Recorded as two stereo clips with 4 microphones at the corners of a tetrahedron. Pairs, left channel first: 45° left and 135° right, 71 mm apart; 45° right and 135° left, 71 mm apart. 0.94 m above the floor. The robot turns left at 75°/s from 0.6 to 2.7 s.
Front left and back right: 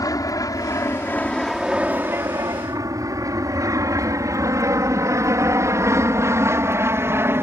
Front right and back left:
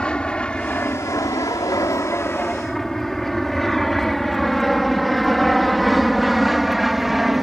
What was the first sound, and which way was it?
An aircraft, 30° left.